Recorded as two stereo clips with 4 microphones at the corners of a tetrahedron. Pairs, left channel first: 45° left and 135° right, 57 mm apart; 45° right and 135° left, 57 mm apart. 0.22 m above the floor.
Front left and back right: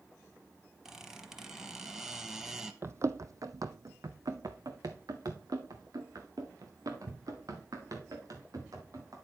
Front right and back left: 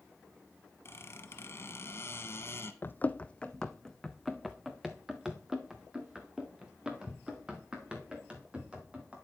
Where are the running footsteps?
95° right, 0.6 m; by 9.2 s 155° right, 3.5 m.